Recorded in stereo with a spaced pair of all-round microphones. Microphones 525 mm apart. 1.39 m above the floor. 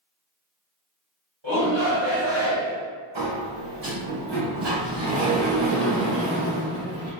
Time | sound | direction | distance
1.4 | a shout | 50° right (ahead or behind) | 1.9 m
3.1 | a sliding door | 50° right (ahead or behind) | 1.2 m